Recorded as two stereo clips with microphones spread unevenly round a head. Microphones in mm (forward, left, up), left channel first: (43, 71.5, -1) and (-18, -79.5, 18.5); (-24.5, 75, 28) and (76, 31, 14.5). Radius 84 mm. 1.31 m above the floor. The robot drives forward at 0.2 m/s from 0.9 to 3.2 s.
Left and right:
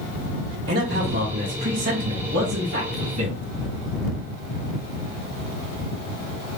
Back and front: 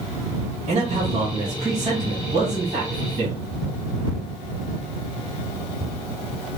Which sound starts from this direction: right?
A man speaking, at 0.7 s.